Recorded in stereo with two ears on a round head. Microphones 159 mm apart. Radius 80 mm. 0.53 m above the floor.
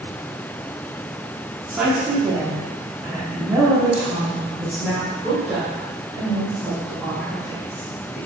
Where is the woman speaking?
5° right (ahead or behind), 1.1 m.